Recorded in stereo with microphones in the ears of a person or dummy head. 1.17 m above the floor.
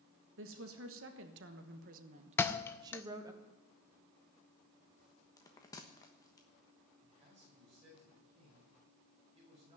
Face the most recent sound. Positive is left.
turn(degrees=-35)  # may be behind; listen again after turning